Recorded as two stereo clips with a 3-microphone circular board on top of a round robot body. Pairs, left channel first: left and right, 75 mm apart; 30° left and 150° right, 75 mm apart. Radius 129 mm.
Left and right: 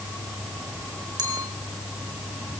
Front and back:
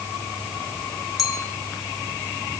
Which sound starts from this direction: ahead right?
A clink, at 1.2 s.